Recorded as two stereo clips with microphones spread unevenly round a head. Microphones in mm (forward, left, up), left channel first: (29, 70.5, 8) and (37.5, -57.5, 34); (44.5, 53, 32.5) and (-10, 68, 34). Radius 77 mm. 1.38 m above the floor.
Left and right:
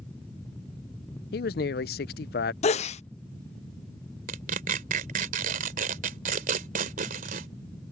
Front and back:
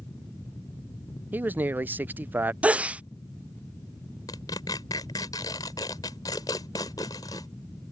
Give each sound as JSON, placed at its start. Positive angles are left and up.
{"t": 1.3, "sound": "a man speaking", "azimuth_deg": 105}
{"t": 2.6, "sound": "a sneeze", "azimuth_deg": 100}
{"t": 4.3, "sound": "tearing paper", "azimuth_deg": -65}